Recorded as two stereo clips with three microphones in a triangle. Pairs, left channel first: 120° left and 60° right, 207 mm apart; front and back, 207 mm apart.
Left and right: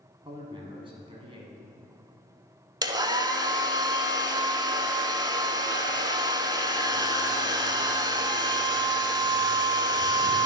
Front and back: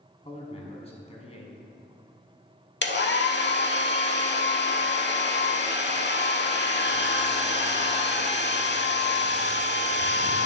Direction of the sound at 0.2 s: 20° right.